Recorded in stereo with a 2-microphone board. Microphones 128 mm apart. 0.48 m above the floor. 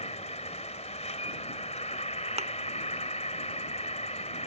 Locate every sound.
0.0 s an insect: 60° left (ahead or behind)
2.4 s a thud: 55° right (ahead or behind)